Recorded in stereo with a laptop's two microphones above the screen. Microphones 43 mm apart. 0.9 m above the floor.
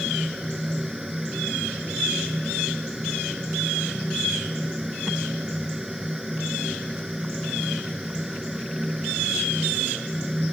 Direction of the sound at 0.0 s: 10° right (ahead or behind).